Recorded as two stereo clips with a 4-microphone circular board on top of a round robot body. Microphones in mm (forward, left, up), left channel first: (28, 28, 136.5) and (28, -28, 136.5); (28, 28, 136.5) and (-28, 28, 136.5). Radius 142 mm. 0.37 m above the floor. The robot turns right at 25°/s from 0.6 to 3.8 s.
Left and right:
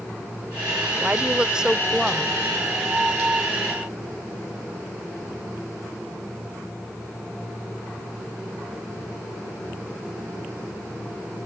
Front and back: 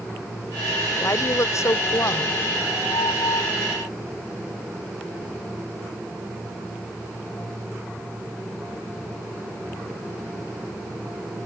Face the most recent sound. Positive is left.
turn(degrees=40)